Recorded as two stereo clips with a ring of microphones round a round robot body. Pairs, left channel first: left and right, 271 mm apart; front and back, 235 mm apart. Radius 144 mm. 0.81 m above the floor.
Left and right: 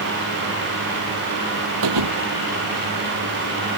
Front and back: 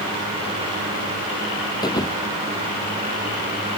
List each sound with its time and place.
1.8 s a thud: 75° right